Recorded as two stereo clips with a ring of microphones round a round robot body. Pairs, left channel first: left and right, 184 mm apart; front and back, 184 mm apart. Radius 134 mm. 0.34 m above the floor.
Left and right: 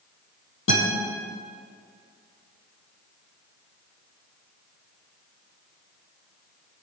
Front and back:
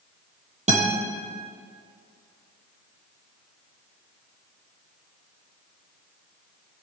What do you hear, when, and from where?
0.7 s a guitar: 130° left, 4.5 m